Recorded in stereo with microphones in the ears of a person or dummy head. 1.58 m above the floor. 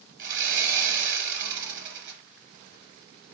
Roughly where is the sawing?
Right.